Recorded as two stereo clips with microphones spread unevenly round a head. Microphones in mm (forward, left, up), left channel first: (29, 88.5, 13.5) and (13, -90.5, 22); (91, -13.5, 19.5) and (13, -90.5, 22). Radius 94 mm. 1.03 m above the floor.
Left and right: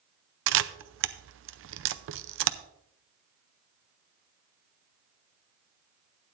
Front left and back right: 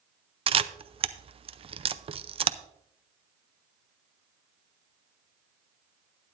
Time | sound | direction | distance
0.5 | a camera shutter | 95° right | 0.6 m